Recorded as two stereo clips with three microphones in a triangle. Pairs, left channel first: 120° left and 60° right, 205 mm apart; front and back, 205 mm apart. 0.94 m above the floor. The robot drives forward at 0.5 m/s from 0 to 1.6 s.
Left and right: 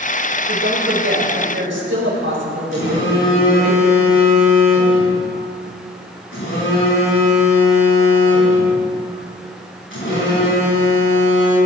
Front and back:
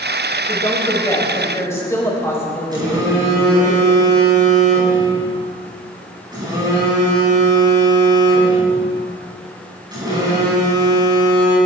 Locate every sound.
0.5 s a woman speaking: 70° right, 4.5 m; by 3.7 s 75° right, 4.5 m
2.7 s a phone buzzing: 110° left, 7 m